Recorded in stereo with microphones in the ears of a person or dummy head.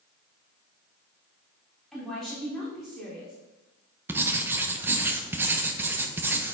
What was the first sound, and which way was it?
A woman speaking, centre (ahead or behind).